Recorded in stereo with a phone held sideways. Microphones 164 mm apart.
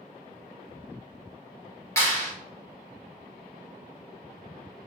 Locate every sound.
2.0 s a clap: 15° left (ahead or behind), 1.4 m